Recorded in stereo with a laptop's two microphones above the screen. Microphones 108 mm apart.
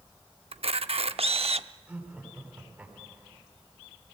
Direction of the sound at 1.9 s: 10° right (ahead or behind).